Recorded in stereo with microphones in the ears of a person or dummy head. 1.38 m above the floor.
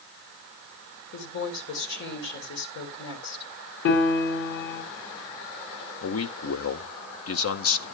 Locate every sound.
1.1 s a woman speaking: 65° left (ahead or behind), 3.5 m
3.9 s a piano: 70° left (ahead or behind), 4 m
6.0 s a man speaking: 70° left (ahead or behind), 1.3 m